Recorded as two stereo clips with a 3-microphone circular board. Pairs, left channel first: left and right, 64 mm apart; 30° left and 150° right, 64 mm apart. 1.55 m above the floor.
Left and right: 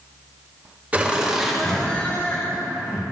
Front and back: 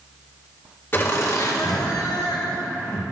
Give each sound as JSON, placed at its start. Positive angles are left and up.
{"t": 0.9, "sound": "laughter", "azimuth_deg": -25, "distance_m": 2.5}